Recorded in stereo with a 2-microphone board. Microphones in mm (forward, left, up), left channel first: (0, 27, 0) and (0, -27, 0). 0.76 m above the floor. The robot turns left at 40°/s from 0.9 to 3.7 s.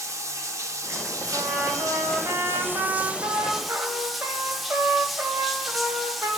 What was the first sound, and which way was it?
Running water, 70° right.